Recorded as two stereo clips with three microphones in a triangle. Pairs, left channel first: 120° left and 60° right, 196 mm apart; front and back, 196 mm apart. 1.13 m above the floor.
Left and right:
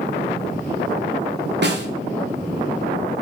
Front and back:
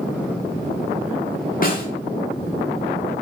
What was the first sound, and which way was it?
A snare drum, 40° right.